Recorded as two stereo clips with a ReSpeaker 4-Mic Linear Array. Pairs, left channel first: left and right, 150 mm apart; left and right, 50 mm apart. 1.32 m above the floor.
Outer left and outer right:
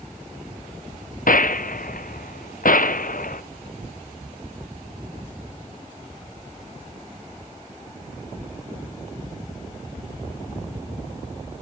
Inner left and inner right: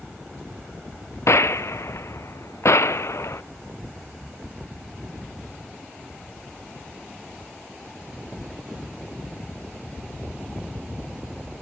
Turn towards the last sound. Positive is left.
turn(degrees=70)  # may be behind; listen again after turning